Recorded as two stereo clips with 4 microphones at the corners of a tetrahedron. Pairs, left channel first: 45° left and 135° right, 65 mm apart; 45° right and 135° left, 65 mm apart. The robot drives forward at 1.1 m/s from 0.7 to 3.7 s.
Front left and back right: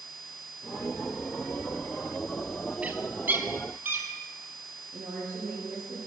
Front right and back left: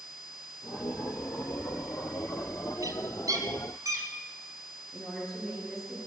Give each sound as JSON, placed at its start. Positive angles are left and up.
{"t": 2.8, "sound": "a bird", "azimuth_deg": 155, "distance_m": 1.0}
{"t": 4.9, "sound": "a woman speaking", "azimuth_deg": -135, "distance_m": 7.0}